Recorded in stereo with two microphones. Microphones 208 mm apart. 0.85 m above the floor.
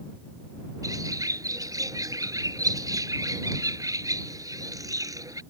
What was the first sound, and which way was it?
A bird, 15° right (ahead or behind).